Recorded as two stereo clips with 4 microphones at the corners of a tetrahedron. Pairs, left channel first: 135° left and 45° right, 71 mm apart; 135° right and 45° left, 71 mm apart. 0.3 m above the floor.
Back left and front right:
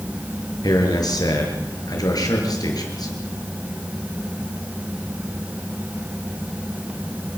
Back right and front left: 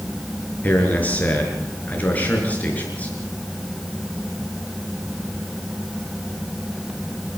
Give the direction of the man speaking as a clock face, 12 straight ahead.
7 o'clock.